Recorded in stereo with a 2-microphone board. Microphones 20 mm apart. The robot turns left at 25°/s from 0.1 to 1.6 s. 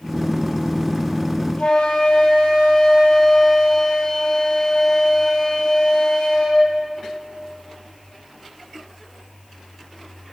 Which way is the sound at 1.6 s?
65° left (ahead or behind).